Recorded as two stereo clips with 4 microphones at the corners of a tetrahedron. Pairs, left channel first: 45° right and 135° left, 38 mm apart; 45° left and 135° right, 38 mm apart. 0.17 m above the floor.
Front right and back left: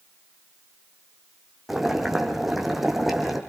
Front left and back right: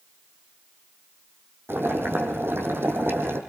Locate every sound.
1.7 s boiling: 140° right, 4 m